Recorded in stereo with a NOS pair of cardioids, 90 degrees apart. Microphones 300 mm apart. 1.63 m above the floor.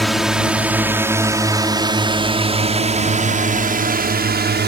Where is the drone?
Straight ahead; by 4.7 s 35° right.